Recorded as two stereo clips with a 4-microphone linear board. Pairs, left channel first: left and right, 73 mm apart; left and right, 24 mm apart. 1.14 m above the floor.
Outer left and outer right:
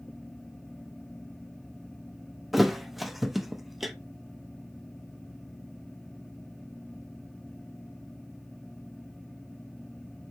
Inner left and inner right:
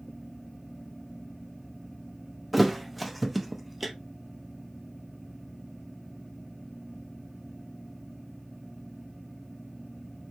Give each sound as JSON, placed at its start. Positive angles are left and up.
{"t": 2.5, "sound": "a thud", "side_deg": 0, "distance_m": 0.5}